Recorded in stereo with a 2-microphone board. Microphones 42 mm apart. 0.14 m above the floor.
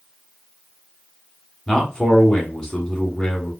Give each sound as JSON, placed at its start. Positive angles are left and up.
{"t": 1.7, "sound": "a man speaking", "side_deg": 15, "distance_m": 1.1}